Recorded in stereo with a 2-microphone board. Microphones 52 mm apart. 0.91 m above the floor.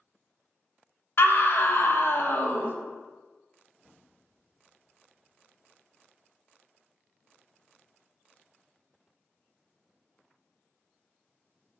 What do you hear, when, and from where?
1.2 s a scream: 50° left (ahead or behind), 0.6 m